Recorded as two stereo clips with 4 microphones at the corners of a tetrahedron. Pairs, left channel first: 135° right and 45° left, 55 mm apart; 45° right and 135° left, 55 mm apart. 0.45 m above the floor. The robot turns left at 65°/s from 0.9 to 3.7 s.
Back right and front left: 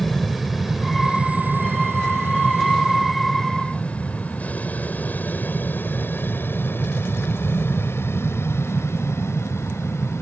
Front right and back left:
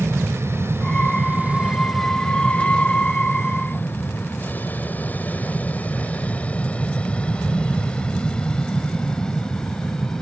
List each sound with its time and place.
0.0 s an aircraft: 135° left; by 10.2 s 120° right